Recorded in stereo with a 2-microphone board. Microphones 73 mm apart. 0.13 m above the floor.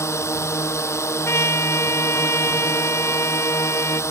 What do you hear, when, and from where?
0.0 s a drone: 40° left (ahead or behind)
1.2 s a trumpet: 40° left (ahead or behind)